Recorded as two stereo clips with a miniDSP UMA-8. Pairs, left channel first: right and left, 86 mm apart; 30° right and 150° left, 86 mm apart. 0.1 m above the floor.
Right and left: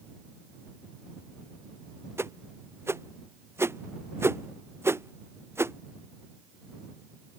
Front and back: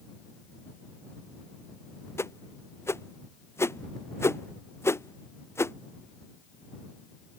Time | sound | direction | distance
2.2 | a whoosh | 30° left | ?